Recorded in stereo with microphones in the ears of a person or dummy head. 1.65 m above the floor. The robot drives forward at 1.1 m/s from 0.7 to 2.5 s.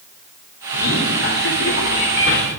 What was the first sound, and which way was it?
A man speaking, 80° left.